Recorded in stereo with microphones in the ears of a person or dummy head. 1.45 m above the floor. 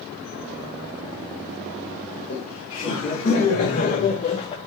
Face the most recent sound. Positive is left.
turn(degrees=30)  # may be behind; listen again after turning